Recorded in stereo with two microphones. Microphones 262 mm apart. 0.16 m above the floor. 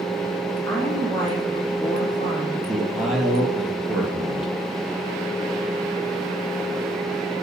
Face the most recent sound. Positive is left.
turn(degrees=0)  # may be behind; listen again after turning